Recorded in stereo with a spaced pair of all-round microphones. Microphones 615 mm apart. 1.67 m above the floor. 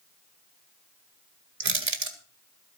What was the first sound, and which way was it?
Crushing, 75° right (ahead or behind).